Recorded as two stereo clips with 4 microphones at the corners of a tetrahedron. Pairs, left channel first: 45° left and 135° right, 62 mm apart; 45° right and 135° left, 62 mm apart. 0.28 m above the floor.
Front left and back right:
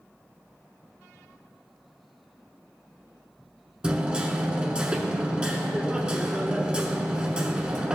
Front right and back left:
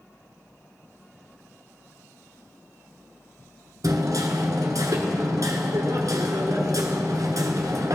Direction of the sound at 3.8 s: 150° left.